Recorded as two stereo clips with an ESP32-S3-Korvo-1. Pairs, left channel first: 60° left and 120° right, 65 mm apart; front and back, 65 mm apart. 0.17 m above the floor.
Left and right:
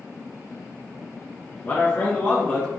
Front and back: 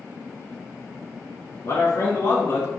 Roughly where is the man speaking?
Ahead.